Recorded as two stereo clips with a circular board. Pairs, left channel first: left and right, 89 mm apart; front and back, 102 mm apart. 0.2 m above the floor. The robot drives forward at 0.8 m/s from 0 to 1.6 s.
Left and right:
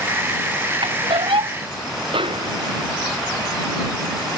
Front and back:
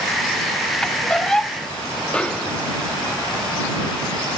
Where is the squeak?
80° right; by 1.6 s 85° right.